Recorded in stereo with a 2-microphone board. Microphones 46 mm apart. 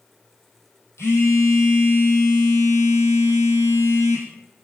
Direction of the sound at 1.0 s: 80° left.